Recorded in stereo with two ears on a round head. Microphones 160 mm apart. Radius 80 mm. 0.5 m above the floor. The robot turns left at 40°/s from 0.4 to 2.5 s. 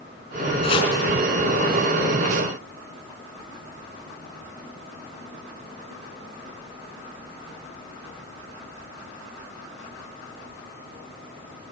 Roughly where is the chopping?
Left.